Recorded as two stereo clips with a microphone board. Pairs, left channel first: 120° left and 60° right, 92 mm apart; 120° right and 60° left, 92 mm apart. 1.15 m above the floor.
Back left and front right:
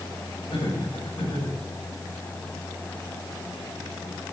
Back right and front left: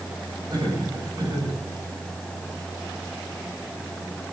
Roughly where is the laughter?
Left.